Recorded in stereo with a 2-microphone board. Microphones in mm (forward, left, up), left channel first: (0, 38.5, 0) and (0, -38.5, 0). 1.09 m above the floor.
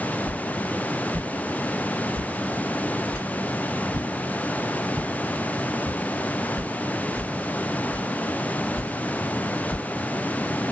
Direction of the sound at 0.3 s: 35° right (ahead or behind).